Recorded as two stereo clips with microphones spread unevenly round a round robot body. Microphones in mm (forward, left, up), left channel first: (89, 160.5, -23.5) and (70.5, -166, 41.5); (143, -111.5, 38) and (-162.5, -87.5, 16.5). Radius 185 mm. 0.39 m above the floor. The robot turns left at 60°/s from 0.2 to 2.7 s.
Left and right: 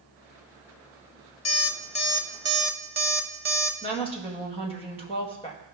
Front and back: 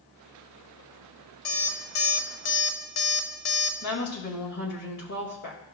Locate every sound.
1.4 s an alarm clock: 50° left, 1.1 m; by 3.7 s 25° right, 1.1 m
3.8 s a woman speaking: 25° left, 2 m